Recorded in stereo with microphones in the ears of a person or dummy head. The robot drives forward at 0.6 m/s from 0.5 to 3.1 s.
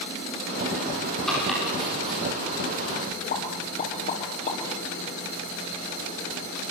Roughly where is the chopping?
Centre.